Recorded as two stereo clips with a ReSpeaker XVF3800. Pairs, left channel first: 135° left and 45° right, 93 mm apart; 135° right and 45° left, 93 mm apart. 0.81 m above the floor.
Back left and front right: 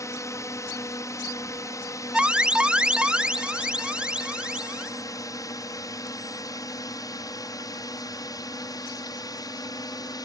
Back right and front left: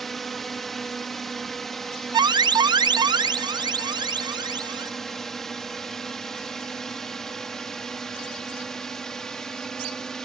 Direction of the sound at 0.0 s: 140° left.